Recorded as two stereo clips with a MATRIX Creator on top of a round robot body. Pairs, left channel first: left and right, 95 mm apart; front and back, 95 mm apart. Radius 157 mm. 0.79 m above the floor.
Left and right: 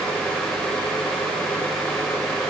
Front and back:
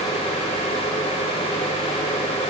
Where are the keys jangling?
No keys jangling in this recording.